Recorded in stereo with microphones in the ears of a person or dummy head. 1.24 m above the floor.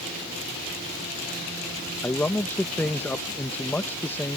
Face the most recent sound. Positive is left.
turn(degrees=10)  # may be behind; listen again after turning